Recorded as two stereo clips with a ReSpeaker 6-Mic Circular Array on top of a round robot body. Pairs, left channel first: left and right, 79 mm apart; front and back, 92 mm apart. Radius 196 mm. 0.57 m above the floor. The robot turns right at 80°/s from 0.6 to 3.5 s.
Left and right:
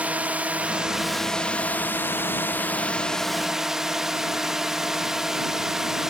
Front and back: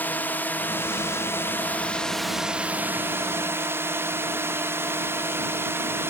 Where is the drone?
40° right; by 6.1 s 170° right.